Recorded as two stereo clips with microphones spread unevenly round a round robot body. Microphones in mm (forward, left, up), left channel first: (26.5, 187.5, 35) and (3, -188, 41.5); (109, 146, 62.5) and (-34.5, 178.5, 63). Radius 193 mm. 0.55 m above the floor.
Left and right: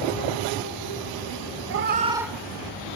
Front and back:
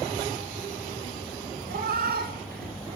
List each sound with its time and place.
1.7 s a cat meowing: 150° right, 0.7 m; by 3.0 s 150° left, 0.9 m